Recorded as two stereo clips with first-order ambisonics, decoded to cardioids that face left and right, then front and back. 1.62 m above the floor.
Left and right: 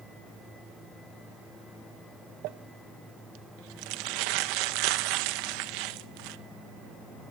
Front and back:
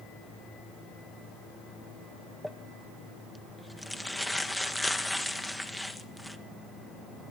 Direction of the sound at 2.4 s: 90° right.